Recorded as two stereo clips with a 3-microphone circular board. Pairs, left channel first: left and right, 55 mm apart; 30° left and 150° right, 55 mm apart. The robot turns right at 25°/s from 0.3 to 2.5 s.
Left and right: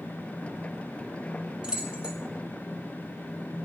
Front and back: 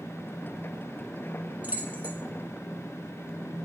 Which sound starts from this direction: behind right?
Keys jangling, at 1.6 s.